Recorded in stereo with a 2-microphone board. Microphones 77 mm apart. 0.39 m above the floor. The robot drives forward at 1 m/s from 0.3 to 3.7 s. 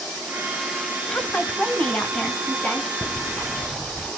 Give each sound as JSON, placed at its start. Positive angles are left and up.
{"t": 1.1, "sound": "a woman speaking", "side_deg": 20, "distance_m": 1.9}
{"t": 3.0, "sound": "ticking", "side_deg": 20, "distance_m": 4.5}